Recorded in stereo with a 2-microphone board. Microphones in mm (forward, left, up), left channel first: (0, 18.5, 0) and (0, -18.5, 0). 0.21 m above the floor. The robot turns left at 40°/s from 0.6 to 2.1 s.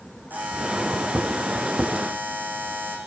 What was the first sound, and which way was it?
A buzzer, 55° right.